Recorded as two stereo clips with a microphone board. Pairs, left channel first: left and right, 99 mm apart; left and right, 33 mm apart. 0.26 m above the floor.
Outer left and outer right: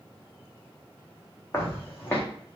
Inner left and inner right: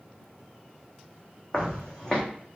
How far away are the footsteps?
About 1.0 m.